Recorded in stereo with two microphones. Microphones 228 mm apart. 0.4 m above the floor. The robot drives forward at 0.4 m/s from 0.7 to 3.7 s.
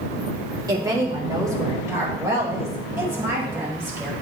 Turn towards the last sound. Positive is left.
turn(degrees=-10)  # may be behind; listen again after turning